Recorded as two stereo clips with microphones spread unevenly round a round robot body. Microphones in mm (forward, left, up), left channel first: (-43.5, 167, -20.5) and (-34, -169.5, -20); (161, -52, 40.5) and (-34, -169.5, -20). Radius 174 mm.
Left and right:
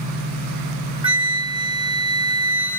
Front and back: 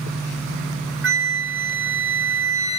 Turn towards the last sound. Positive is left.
turn(degrees=-160)